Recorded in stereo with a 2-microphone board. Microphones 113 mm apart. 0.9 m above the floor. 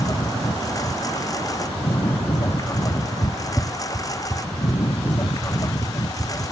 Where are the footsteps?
5° right (ahead or behind); by 6.4 s 10° right (ahead or behind).